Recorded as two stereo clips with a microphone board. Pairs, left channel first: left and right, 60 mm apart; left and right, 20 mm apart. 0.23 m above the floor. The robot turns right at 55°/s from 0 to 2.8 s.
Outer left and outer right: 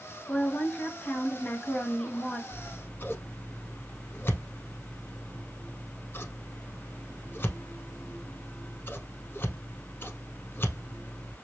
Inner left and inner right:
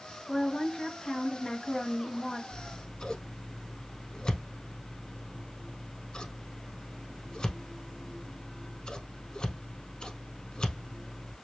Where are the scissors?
55° left (ahead or behind), 0.7 m; by 11.3 s 40° left (ahead or behind), 0.7 m.